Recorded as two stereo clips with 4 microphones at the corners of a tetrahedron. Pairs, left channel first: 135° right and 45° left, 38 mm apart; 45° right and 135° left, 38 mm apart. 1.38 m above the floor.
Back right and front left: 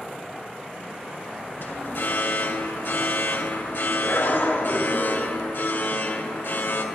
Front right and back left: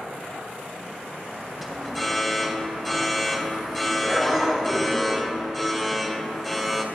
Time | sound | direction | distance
1.6 | an alarm | 135° right | 2.5 m